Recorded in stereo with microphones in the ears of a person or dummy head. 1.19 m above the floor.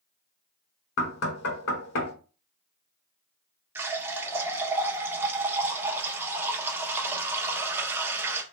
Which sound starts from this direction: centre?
A running tap, at 3.8 s.